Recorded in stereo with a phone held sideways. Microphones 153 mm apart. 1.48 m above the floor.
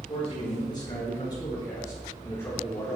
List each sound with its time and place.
0.1 s a man speaking: 35° left (ahead or behind), 6 m; by 3.0 s 10° left (ahead or behind), 3.5 m